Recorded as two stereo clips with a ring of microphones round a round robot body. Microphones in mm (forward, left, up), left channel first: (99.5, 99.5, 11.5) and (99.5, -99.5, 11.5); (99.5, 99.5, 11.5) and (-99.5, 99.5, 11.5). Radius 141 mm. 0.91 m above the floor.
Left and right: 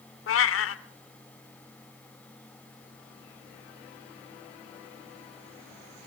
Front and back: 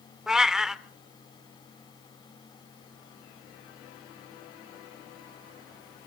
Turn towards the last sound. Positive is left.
turn(degrees=95)